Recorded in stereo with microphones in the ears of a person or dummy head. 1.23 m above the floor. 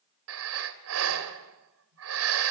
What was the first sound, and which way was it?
Breathing, 75° right (ahead or behind).